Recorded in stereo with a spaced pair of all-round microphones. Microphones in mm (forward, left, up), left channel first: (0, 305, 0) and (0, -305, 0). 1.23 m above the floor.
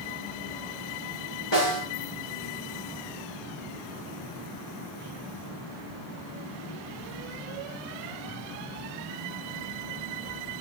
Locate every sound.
1.5 s a snare drum: 45° left (ahead or behind), 4.5 m